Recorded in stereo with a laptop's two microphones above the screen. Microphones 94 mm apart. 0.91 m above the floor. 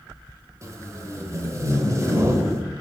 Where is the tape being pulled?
35° right (ahead or behind), 1.9 m.